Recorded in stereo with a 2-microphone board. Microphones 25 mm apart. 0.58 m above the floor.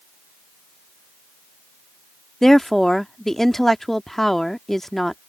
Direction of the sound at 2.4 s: 10° left (ahead or behind).